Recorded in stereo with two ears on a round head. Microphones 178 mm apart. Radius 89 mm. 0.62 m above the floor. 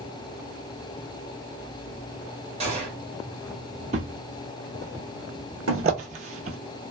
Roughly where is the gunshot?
Right.